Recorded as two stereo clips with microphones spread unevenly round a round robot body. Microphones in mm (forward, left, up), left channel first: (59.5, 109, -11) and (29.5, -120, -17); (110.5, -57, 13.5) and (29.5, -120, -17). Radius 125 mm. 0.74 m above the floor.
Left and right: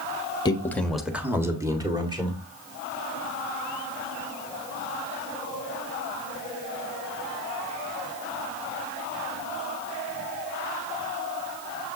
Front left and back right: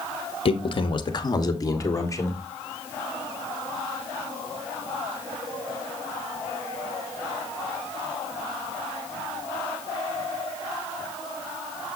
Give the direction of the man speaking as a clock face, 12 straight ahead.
11 o'clock.